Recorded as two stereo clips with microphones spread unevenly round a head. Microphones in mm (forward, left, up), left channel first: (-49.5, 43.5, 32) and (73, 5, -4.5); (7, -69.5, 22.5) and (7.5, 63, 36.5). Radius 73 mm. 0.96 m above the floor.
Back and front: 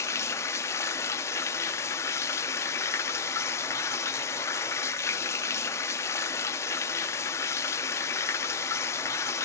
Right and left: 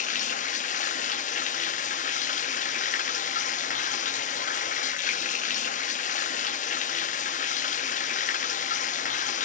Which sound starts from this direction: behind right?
Running water, at 0.0 s.